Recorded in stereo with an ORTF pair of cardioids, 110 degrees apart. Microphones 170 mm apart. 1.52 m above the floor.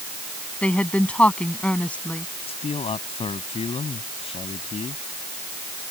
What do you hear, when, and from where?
0.6 s a woman speaking: 5° left
2.5 s a man speaking: 35° left